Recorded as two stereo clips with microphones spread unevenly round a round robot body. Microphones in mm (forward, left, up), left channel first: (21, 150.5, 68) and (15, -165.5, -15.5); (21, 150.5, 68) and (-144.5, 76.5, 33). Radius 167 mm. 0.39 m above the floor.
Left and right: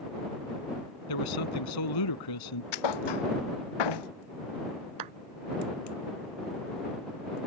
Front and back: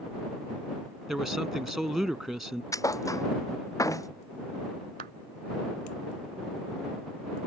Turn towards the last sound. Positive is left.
turn(degrees=-105)